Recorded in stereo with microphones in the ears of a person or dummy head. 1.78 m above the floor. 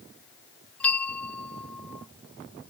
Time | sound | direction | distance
0.8 | a bell | 10° left (ahead or behind) | ?